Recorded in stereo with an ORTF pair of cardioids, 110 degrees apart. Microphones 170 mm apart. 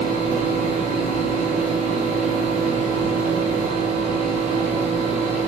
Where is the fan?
50° right, 0.8 m.